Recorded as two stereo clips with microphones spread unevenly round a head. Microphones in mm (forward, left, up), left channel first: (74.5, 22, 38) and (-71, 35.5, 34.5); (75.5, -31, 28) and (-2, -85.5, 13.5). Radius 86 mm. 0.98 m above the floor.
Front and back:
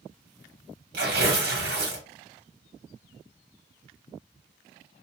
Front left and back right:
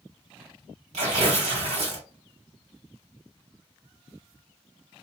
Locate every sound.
0.9 s tearing paper: 170° right, 1.8 m